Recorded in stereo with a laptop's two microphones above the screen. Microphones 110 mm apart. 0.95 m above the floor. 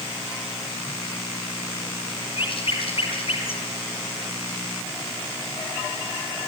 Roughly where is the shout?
No shout in this recording.